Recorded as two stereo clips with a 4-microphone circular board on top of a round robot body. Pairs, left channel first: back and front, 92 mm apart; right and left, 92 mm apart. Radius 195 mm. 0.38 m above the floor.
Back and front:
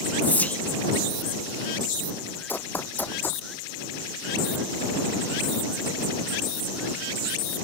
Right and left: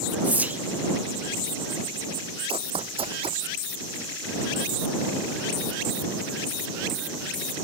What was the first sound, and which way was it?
Whispering, 135° left.